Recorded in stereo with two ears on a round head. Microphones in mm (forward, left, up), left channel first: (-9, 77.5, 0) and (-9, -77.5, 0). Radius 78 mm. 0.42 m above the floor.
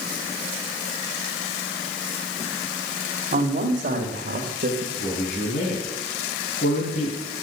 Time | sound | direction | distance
3.3 | a man speaking | 50° right (ahead or behind) | 2 m
5.0 | a man speaking | 55° left (ahead or behind) | 3.5 m